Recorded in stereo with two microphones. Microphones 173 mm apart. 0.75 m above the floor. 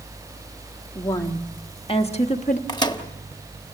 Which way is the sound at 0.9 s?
15° left (ahead or behind).